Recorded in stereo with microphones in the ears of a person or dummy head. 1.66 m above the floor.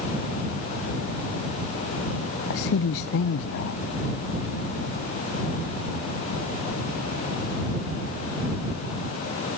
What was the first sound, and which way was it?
A man speaking, 55° left (ahead or behind).